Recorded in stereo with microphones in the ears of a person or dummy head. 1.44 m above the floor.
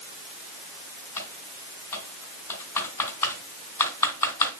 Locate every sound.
1.2 s typing on a keyboard: 20° left (ahead or behind), 3.5 m